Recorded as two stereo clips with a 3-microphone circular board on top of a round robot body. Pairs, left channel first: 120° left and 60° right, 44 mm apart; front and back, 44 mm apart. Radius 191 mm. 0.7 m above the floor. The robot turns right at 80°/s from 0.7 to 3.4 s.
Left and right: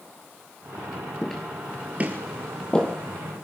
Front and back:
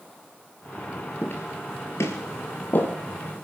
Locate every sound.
1.2 s footsteps: 45° left, 0.7 m; by 3.0 s 60° left, 1.5 m